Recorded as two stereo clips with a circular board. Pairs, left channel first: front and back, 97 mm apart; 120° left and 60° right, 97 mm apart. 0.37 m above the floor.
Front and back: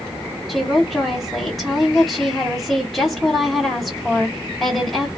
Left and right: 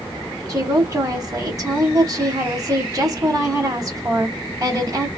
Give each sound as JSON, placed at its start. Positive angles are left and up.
{"t": 0.5, "sound": "a woman speaking", "azimuth_deg": -90, "distance_m": 1.8}